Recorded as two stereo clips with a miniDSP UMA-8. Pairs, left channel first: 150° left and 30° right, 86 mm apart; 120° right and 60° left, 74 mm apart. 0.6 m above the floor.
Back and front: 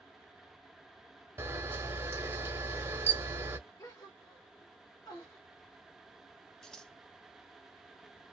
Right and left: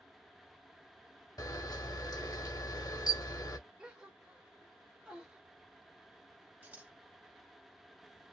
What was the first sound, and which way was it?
A camera shutter, 90° right.